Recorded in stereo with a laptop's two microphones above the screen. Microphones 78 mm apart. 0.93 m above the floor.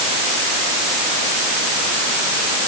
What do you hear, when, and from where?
Only background noise.